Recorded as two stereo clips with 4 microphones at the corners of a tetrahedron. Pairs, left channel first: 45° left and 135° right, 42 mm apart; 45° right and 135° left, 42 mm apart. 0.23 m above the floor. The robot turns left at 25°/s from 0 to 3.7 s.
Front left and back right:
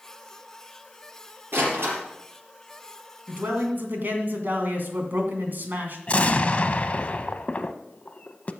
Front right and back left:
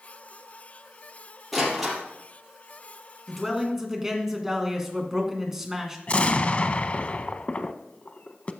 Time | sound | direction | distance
1.5 | a door slam | 135° right | 5 m
3.3 | a man speaking | 140° right | 2 m
6.1 | an explosion | straight ahead | 0.6 m